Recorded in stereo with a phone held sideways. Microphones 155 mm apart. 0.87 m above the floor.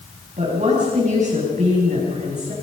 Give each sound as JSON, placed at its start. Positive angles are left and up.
{"t": 0.4, "sound": "a woman speaking", "side_deg": -50, "distance_m": 6.0}